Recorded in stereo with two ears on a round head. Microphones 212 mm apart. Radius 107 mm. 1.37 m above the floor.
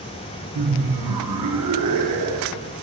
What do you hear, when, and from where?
0.6 s laughter: 80° right, 1.0 m